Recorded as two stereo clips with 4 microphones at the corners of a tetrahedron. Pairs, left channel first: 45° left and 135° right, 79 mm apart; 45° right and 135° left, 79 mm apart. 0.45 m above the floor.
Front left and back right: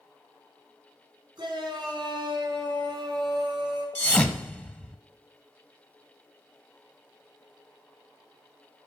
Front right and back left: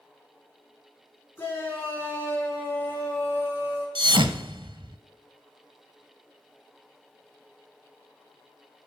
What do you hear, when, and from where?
1.4 s a shout: 100° right, 5 m; by 3.9 s 105° right, 6.5 m
4.0 s a thud: 115° left, 0.8 m